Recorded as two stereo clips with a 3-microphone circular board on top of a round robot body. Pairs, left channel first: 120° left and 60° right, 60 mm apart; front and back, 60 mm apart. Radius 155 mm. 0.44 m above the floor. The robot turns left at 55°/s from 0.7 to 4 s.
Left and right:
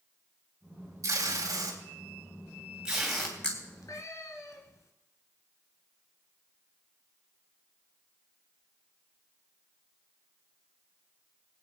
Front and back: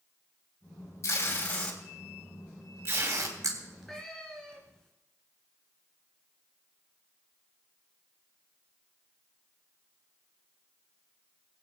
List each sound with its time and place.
1.0 s tape being pulled: 35° right, 3 m; by 3.5 s 170° right, 3 m
3.6 s a cat meowing: 105° left, 1.8 m; by 4.9 s 80° left, 1.8 m